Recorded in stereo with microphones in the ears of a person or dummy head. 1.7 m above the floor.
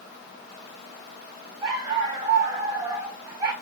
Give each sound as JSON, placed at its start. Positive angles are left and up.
{"t": 1.6, "sound": "a dog barking", "side_deg": -20, "distance_m": 1.9}